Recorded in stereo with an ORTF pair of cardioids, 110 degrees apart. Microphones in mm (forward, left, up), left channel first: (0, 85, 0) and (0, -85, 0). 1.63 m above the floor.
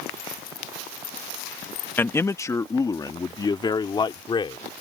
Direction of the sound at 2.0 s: 15° left.